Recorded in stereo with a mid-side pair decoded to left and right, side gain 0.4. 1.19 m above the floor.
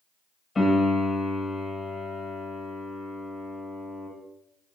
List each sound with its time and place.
0.6 s a piano: 40° left, 1.0 m